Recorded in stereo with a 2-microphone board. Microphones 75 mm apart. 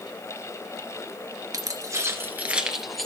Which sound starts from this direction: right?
Keys jangling, at 1.5 s.